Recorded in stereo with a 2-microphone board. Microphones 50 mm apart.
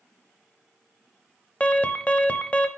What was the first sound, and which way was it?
An alarm, 25° left (ahead or behind).